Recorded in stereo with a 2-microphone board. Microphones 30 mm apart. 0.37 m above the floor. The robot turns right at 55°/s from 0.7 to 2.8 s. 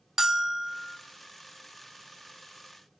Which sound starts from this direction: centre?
A bell, at 0.2 s.